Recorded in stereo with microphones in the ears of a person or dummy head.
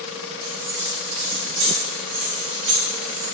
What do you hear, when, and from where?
0.4 s keys jangling: 75° right (ahead or behind), 1.7 m; by 3.3 s 20° right (ahead or behind), 0.8 m